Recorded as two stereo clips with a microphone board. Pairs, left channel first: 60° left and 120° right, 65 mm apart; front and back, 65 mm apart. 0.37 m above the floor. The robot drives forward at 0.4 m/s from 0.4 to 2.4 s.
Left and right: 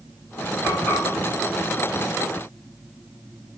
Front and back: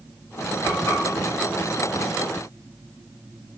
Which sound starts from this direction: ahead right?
Frying, at 0.6 s.